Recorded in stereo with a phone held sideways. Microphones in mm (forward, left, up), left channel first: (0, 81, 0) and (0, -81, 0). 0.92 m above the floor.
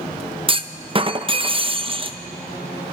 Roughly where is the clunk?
Right.